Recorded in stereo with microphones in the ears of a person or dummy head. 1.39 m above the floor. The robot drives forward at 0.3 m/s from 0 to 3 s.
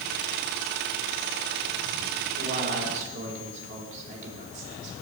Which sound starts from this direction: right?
A man speaking, at 2.4 s.